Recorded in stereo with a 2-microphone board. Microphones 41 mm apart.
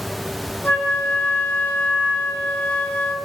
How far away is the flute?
About 3 m.